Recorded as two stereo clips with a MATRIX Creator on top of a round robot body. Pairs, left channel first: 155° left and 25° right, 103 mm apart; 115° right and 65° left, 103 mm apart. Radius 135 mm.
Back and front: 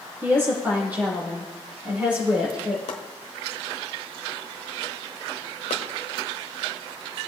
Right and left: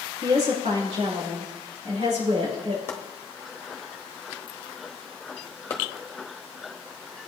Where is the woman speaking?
45° left, 6.5 m; by 2.8 s 55° left, 6 m.